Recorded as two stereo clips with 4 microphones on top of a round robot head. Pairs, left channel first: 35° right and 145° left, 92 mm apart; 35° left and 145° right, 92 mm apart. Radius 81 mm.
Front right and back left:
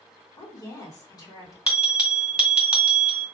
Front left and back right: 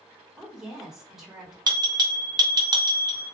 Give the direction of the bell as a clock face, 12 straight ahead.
5 o'clock.